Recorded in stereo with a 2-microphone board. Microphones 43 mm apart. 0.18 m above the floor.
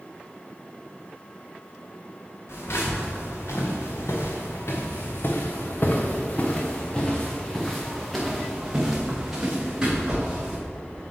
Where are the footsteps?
80° left, 2.5 m; by 10.6 s 20° right (ahead or behind), 3 m.